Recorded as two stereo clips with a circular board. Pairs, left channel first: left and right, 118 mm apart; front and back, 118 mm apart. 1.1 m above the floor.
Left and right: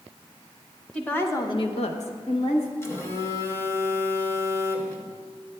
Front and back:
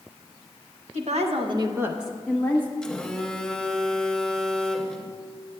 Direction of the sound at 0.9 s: 170° left.